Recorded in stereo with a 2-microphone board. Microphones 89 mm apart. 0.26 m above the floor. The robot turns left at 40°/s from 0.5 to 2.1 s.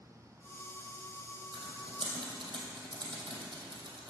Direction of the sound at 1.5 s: 80° right.